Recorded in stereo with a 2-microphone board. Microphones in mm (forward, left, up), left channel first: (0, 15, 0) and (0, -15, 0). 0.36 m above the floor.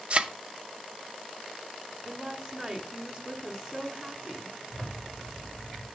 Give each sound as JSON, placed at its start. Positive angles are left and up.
{"t": 0.1, "sound": "a thud", "side_deg": -35, "distance_m": 0.5}
{"t": 2.0, "sound": "a woman speaking", "side_deg": -20, "distance_m": 1.3}
{"t": 4.7, "sound": "a zipper", "side_deg": 35, "distance_m": 3.5}